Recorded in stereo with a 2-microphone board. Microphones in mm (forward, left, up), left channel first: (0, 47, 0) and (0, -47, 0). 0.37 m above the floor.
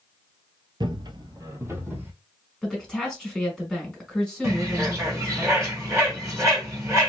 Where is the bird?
30° right (ahead or behind), 1.8 m.